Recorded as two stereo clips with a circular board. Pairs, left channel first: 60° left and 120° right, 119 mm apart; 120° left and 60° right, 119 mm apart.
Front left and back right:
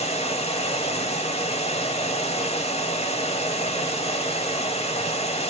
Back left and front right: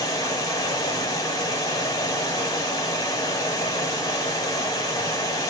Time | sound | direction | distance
0.0 | running water | 65° left | 0.8 m